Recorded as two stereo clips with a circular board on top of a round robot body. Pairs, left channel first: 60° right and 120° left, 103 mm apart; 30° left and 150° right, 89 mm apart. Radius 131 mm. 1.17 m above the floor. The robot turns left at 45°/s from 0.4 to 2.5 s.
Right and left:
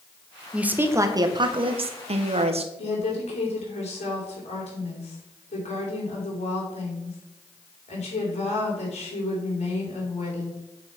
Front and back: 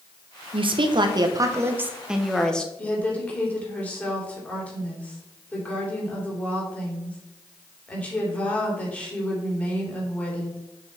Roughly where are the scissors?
No scissors in this recording.